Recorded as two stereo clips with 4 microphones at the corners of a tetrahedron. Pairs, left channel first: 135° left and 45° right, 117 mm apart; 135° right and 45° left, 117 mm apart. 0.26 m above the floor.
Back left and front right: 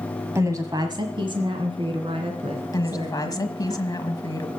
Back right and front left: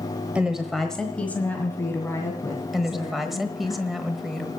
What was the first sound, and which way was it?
A woman speaking, 25° right.